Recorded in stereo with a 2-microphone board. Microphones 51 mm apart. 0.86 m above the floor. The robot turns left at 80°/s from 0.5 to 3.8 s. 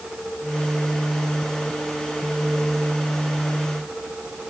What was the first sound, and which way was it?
Only background noise.